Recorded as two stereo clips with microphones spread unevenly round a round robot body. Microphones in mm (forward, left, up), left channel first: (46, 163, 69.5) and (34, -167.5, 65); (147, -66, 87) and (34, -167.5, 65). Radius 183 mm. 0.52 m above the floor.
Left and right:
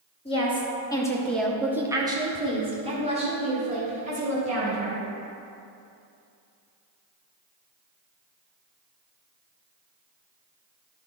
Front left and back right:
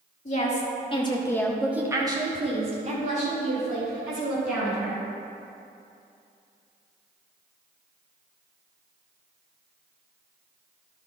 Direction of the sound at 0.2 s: 20° left.